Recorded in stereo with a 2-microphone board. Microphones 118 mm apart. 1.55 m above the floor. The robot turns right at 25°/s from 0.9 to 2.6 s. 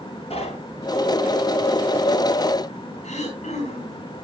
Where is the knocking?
60° left (ahead or behind), 8.5 m.